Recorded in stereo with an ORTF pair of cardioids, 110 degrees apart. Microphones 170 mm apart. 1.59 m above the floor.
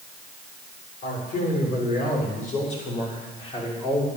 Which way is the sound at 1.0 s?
60° left.